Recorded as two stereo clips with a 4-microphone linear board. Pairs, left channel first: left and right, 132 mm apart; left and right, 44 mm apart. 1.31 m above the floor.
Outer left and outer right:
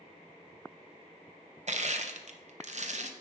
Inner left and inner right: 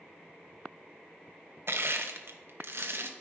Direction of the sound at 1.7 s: 60° right (ahead or behind).